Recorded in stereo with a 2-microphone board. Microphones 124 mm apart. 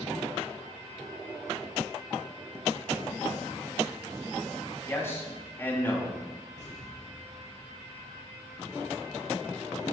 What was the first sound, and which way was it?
A man speaking, 20° left (ahead or behind).